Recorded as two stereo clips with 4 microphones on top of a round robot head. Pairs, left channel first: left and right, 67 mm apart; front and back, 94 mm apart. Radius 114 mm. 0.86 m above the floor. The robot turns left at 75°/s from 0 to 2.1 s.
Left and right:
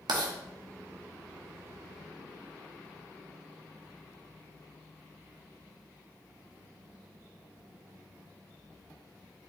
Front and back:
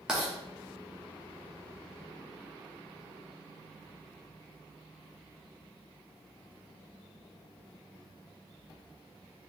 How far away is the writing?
About 0.8 m.